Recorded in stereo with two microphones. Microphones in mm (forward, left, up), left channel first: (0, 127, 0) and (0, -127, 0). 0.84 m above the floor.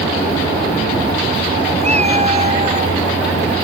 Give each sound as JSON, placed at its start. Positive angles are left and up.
{"t": 1.8, "sound": "a cat meowing", "side_deg": -25}